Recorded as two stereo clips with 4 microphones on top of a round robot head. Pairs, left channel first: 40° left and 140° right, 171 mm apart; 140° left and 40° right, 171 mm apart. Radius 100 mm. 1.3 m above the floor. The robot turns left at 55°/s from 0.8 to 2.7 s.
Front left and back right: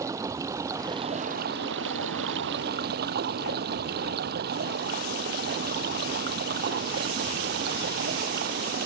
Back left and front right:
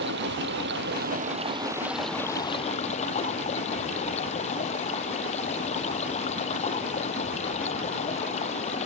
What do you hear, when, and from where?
0.0 s running water: 65° right; by 8.9 s 170° right